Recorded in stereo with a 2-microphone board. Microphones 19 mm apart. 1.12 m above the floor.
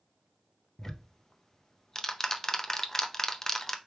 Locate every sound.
0.8 s ticking: 20° left (ahead or behind), 0.6 m